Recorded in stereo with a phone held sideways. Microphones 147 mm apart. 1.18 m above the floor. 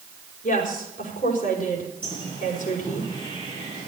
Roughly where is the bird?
Left.